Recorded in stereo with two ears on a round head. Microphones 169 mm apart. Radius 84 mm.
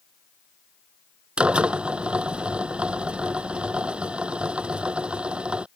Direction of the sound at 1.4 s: 5° right (ahead or behind).